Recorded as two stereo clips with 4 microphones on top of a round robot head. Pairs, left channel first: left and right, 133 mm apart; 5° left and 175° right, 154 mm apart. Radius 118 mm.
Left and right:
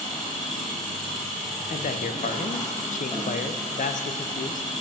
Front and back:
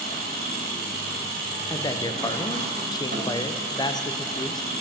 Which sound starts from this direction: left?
A man speaking, at 1.7 s.